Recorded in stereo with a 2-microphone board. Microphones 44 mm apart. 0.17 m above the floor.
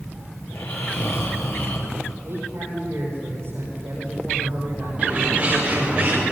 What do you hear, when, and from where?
0.5 s snoring: 65° left (ahead or behind), 4 m
2.2 s a man speaking: 65° right (ahead or behind), 9.5 m
5.0 s a bird: 25° right (ahead or behind), 8.5 m